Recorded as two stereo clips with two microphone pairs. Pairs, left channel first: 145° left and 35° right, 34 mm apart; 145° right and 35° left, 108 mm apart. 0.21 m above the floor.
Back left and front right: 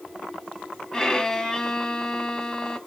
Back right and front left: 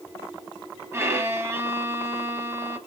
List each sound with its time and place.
0.9 s a violin: 90° left, 0.8 m